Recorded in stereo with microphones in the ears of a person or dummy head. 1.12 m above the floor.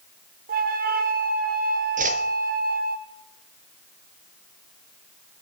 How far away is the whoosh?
About 1.0 m.